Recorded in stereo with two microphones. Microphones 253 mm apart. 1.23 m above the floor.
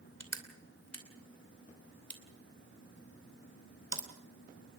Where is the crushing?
80° left, 2.5 m.